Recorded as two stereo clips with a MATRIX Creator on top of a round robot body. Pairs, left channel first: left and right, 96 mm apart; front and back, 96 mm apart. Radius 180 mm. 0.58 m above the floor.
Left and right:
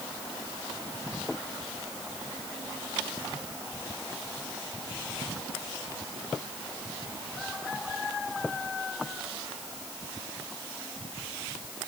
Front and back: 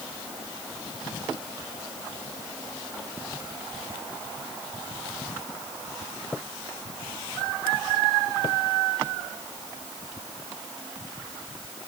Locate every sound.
Only background noise.